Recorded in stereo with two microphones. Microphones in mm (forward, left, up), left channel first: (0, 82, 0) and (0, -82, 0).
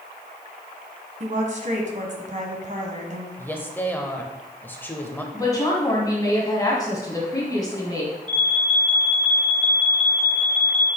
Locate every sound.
1.2 s a woman speaking: 50° right (ahead or behind), 1.7 m
3.4 s a woman speaking: 15° left (ahead or behind), 0.9 m
5.3 s a woman speaking: 20° left (ahead or behind), 1.9 m
8.3 s an alarm: 30° right (ahead or behind), 1.0 m